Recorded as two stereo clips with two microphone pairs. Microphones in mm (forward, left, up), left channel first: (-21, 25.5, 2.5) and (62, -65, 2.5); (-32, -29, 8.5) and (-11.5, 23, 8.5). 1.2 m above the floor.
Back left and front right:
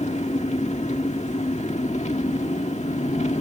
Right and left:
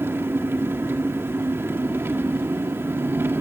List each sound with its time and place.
0.0 s an engine running: 110° left, 1.6 m